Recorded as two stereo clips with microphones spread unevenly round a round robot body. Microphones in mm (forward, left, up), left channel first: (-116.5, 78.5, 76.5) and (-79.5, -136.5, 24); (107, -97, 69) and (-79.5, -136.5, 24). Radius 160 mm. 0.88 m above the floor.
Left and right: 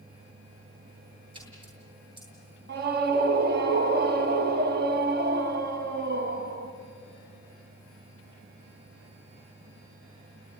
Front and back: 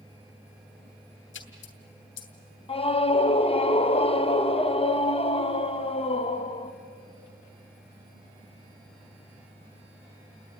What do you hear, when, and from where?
1.3 s a splash: 5° right, 2.5 m
2.7 s a scream: 55° right, 1.1 m